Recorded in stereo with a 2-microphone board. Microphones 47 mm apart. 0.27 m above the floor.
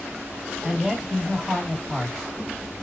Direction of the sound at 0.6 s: Centre (ahead or behind).